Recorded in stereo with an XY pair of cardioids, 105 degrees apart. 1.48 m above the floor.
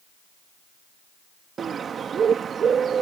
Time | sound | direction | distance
1.6 | a bird | 50° right | ?